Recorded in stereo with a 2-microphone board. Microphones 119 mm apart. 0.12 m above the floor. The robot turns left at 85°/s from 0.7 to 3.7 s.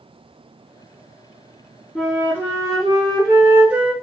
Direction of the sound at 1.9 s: Straight ahead.